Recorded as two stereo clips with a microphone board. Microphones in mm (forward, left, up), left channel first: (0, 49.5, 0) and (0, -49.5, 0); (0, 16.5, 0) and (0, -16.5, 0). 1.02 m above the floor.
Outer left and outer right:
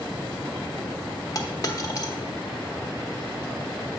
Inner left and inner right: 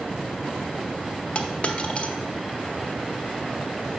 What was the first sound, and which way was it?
A dropped coin, 40° left (ahead or behind).